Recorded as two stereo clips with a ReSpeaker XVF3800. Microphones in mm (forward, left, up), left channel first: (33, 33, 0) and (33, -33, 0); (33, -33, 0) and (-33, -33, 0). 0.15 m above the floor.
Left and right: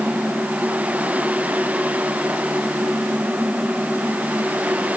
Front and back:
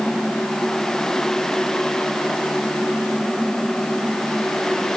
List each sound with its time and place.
Only background noise.